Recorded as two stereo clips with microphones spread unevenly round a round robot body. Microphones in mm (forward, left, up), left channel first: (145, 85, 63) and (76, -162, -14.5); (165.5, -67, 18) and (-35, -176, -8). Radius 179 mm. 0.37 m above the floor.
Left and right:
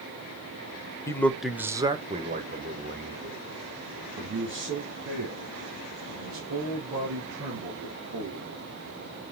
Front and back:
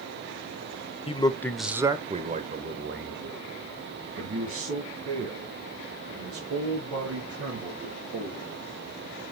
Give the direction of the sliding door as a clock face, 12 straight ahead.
I don't hear a sliding door.